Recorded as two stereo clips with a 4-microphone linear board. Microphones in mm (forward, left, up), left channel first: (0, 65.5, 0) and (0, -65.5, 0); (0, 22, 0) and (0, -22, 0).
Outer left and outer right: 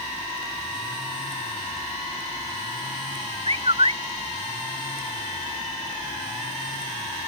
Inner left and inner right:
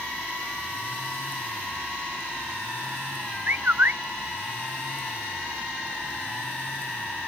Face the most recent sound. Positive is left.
turn(degrees=-45)  # may be behind; listen again after turning